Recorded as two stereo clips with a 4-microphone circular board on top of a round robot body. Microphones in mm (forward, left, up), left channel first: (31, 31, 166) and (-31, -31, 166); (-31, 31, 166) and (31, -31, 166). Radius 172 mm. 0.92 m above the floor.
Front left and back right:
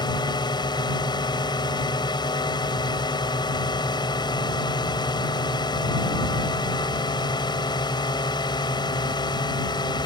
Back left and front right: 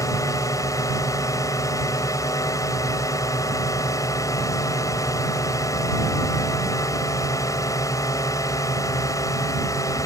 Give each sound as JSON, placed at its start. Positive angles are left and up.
{"t": 0.0, "sound": "a drone", "azimuth_deg": 80}